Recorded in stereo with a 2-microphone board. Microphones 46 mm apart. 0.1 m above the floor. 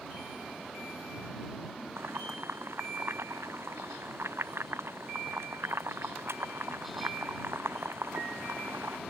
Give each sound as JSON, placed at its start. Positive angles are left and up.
{"t": 2.0, "sound": "boiling", "side_deg": -65}